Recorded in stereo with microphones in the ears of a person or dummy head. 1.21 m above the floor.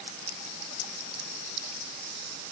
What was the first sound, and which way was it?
Only background noise.